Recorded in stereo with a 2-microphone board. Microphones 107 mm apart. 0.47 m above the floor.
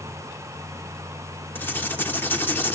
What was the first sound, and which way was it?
Writing, 20° left (ahead or behind).